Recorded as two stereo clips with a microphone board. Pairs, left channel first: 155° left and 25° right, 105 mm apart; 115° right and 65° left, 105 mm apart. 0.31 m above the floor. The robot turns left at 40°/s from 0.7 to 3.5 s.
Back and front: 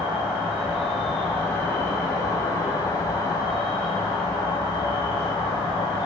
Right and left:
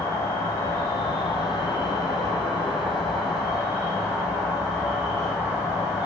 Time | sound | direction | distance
0.0 | an insect | 100° right | 1.5 m